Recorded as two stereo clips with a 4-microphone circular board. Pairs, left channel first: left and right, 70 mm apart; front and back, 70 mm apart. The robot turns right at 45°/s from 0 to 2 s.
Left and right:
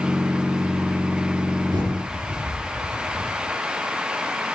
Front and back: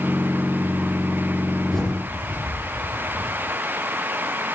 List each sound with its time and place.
1.7 s a bird: 90° right, 5 m; by 3.3 s 75° right, 5 m